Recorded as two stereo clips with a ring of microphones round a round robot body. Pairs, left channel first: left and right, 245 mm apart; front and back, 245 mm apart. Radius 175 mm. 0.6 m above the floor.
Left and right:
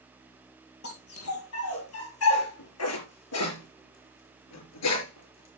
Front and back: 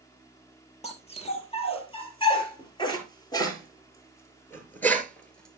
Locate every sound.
0.8 s a dog barking: 65° left, 6 m; by 5.6 s 90° left, 4.5 m